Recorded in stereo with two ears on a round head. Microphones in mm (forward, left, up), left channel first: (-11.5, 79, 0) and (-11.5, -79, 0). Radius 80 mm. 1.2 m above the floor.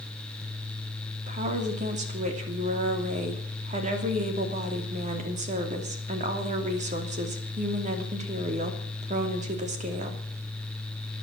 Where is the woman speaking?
45° right (ahead or behind), 2.5 m.